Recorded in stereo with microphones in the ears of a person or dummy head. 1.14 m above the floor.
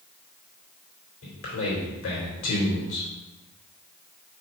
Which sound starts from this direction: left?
A man speaking, at 1.2 s.